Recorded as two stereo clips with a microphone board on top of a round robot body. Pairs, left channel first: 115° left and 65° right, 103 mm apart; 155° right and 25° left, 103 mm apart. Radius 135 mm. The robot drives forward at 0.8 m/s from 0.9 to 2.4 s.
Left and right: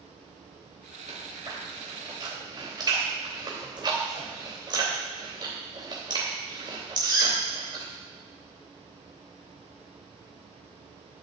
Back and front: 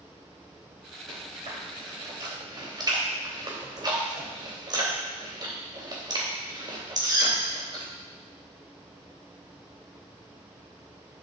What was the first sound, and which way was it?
Chewing, 15° right.